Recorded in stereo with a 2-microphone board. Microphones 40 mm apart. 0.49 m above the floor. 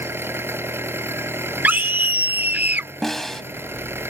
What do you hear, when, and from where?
0.0 s an engine running: 75° right (ahead or behind)
1.6 s a scream: 50° right (ahead or behind)
3.0 s a snare drum: 10° left (ahead or behind)